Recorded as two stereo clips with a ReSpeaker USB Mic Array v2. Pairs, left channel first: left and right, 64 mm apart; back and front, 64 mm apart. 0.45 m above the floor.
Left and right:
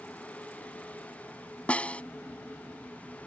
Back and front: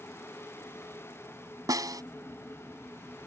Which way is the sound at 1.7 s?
20° left.